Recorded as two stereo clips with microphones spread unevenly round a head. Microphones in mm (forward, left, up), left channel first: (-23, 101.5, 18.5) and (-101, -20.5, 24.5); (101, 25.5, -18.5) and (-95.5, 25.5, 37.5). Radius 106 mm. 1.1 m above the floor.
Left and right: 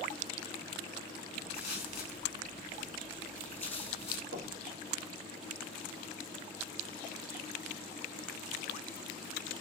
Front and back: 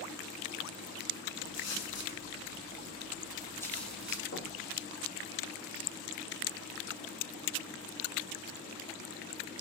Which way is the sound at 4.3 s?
30° left.